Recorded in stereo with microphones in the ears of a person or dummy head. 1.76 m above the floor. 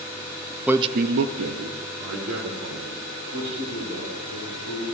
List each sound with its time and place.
0.7 s a man speaking: 10° right (ahead or behind), 0.6 m; by 4.8 s 60° right (ahead or behind), 5.5 m